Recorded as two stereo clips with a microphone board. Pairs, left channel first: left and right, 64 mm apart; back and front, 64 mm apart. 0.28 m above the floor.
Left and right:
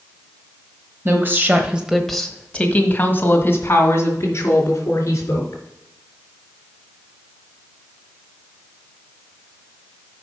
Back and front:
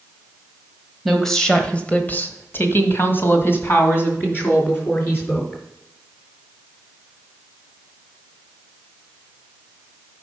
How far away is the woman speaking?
About 1.5 m.